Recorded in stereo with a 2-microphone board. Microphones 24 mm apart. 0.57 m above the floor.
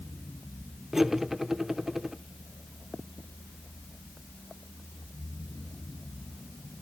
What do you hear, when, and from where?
0.9 s cutlery clinking: 15° right (ahead or behind), 0.6 m